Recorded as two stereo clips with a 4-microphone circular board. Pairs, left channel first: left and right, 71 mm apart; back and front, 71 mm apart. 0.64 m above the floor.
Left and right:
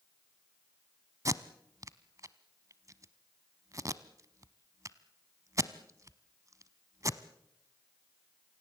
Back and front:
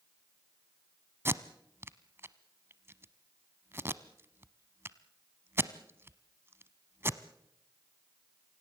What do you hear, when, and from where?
1.2 s tape being pulled: 55° right, 0.8 m